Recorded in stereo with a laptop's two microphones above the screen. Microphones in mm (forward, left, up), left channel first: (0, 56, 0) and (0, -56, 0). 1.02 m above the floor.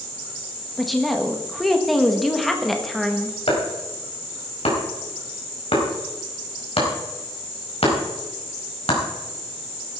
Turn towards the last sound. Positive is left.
turn(degrees=70)  # may be behind; listen again after turning